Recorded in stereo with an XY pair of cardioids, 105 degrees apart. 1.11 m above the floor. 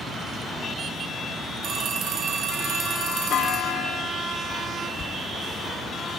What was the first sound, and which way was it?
A phone ringing, 70° right.